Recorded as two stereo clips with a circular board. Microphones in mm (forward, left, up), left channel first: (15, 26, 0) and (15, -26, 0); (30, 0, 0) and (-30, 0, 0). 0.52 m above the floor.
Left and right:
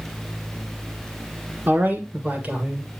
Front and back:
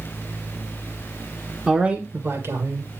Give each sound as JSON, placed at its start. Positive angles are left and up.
{"t": 1.7, "sound": "a man speaking", "azimuth_deg": -100, "distance_m": 1.1}